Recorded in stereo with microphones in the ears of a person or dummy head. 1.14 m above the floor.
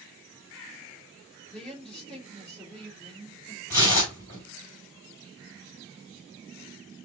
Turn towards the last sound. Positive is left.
turn(degrees=15)  # may be behind; listen again after turning